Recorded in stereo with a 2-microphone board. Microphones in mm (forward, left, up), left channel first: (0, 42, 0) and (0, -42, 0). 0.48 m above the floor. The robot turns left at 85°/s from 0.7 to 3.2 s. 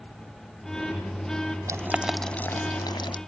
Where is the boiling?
40° right (ahead or behind), 0.7 m; by 3.2 s 80° left, 0.7 m.